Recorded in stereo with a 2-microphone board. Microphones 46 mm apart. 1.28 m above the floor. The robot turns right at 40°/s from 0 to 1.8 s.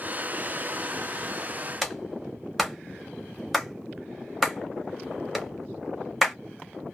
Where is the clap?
5° right (ahead or behind), 1.0 m.